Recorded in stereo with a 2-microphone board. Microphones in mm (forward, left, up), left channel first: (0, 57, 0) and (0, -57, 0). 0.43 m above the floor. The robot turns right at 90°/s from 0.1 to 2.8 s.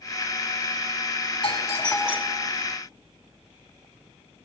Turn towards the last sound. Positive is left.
turn(degrees=-110)